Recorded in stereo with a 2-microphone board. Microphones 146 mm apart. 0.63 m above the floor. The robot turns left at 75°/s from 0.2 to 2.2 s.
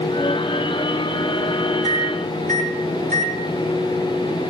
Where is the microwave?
30° right (ahead or behind), 4 m; by 3.4 s 55° right (ahead or behind), 4 m.